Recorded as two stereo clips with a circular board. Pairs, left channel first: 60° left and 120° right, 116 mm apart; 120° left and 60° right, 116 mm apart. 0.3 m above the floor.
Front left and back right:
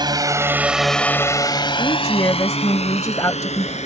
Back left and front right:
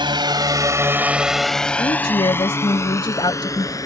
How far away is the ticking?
I don't hear ticking.